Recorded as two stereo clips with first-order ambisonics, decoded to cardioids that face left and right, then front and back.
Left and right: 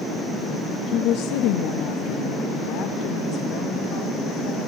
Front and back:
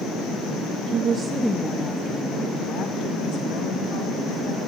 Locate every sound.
0.9 s a woman speaking: 140° left, 1.0 m; by 4.6 s 45° left, 5.5 m